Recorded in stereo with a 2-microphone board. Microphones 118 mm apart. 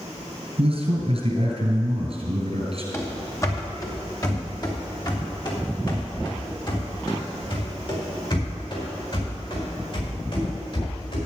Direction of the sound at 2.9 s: 20° left (ahead or behind).